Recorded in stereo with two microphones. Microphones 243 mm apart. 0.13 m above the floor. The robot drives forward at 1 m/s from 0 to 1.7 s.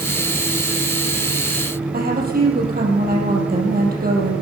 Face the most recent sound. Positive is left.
turn(degrees=-35)  # may be behind; listen again after turning